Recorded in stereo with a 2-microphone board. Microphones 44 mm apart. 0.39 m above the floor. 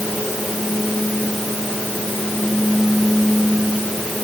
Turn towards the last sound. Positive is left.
No sound to turn to.